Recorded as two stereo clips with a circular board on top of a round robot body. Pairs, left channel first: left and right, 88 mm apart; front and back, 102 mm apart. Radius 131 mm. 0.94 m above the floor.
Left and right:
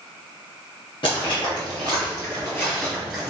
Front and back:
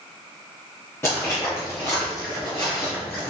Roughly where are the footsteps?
Ahead left.